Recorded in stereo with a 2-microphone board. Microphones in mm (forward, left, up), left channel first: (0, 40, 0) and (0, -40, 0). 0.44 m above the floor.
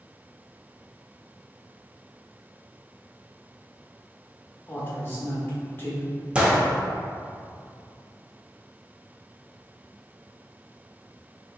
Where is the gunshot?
15° right (ahead or behind), 0.6 m.